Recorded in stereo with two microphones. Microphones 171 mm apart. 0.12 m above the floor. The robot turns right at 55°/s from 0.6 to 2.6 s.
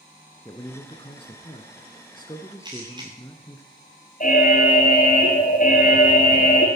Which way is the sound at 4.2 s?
50° left (ahead or behind).